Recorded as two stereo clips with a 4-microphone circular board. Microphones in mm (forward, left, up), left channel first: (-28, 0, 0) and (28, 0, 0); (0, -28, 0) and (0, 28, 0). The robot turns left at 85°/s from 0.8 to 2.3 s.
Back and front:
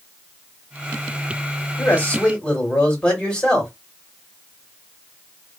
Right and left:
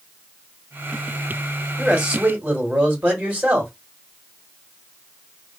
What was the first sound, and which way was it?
A man speaking, 175° left.